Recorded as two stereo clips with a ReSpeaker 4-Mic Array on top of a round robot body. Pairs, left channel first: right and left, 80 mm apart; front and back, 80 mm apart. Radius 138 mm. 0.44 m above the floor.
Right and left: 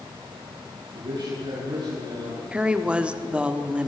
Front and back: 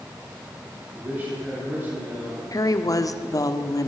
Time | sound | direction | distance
0.9 | a man speaking | 115° left | 8 m
2.5 | a woman speaking | 20° left | 1.6 m